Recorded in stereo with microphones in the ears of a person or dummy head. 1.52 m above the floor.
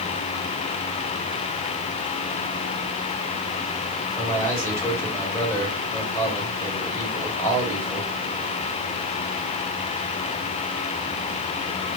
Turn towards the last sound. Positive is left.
turn(degrees=15)  # may be behind; listen again after turning